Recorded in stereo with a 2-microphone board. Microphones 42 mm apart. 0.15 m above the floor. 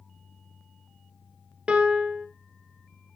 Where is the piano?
25° right (ahead or behind), 1.1 m.